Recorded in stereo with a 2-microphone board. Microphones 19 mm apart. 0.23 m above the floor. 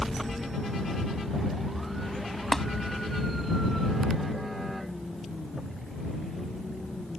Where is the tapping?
20° left (ahead or behind).